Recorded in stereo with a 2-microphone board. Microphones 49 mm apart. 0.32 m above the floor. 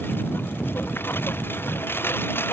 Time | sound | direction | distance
0.0 | a lawn mower | 50° left (ahead or behind) | ?